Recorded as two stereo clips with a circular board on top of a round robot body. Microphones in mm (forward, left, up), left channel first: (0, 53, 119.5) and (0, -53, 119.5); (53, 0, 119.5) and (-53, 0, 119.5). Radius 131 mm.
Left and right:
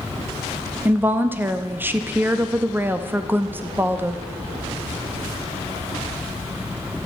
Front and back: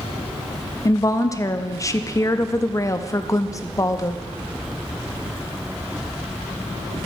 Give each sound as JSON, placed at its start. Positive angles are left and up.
{"t": 0.8, "sound": "a woman speaking", "azimuth_deg": -30, "distance_m": 0.7}